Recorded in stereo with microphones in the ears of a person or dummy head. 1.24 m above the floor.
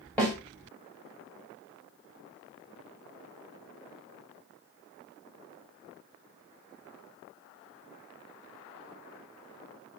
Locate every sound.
0.2 s a snare drum: 10° left (ahead or behind), 1.3 m